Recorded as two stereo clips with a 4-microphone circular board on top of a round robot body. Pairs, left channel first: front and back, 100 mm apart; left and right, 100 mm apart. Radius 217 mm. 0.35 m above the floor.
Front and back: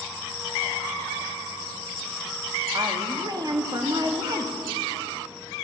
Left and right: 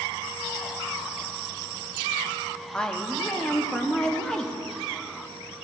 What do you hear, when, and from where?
2.7 s a woman speaking: 170° left, 1.2 m